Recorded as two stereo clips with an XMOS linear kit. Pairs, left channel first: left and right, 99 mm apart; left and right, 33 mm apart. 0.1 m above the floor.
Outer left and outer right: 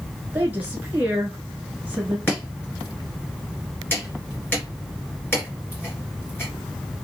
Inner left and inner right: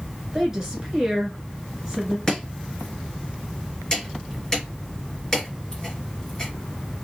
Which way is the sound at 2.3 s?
20° left (ahead or behind).